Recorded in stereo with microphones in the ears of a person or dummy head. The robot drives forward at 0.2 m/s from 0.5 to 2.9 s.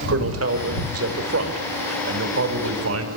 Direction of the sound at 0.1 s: 85° right.